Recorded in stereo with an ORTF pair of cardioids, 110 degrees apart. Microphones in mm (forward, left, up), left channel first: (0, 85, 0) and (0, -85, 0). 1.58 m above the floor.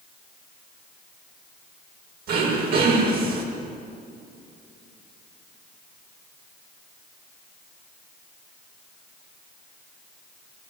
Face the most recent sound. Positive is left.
turn(degrees=-65)